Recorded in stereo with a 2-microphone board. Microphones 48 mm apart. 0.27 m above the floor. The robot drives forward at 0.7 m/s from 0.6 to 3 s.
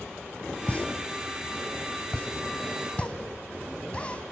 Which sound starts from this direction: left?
A pop, at 0.7 s.